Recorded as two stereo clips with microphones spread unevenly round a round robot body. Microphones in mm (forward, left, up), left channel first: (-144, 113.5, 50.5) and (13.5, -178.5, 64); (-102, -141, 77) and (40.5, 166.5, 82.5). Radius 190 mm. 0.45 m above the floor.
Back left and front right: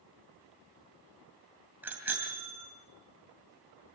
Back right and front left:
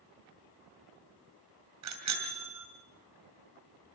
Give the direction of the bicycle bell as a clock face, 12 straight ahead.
11 o'clock.